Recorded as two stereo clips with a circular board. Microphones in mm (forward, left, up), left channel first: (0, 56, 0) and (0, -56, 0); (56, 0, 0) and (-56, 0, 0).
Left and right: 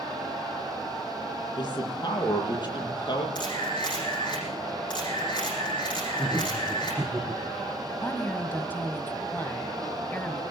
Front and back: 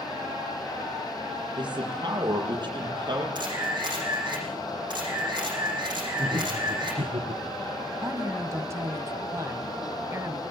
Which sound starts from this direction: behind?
Laughter, at 6.2 s.